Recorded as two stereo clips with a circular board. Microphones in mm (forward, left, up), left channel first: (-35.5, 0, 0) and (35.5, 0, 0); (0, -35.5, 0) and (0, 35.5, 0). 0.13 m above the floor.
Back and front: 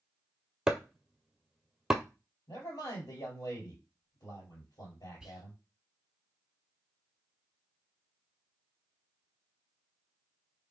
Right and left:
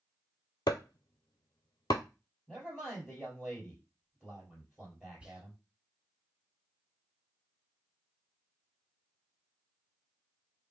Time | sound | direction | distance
0.7 | chopping | 80° right | 0.5 m
2.5 | a man speaking | 170° left | 2.5 m
5.2 | whispering | 60° left | 1.1 m